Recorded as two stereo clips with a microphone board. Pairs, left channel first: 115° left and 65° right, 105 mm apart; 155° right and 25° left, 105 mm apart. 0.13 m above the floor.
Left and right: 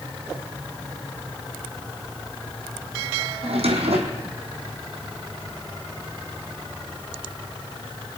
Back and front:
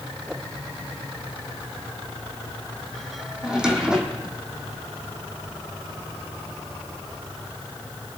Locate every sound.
3.4 s a drawer: 60° right, 1.8 m